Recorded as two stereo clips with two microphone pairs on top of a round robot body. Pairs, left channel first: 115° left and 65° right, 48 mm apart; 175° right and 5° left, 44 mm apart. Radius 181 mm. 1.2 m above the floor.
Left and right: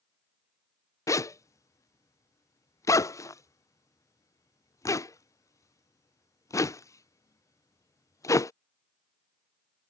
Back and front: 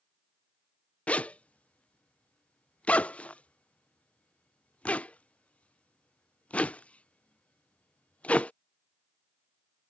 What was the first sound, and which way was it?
A zipper, 120° left.